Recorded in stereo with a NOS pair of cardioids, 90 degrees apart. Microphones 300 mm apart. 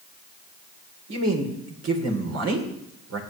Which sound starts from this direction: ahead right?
A man speaking, at 1.1 s.